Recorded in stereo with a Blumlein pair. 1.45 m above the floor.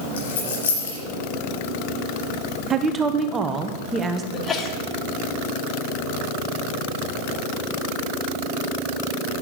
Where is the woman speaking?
15° right, 1.3 m.